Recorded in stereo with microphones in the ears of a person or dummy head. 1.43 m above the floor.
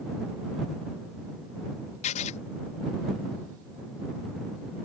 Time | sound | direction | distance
2.0 | writing | 40° left (ahead or behind) | ?